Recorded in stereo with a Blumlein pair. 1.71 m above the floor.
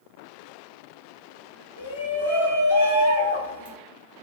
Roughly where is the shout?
Ahead left.